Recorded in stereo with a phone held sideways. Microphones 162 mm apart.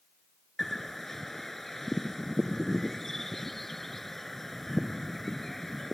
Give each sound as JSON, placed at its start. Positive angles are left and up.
{"t": 0.6, "sound": "a bird", "side_deg": 0}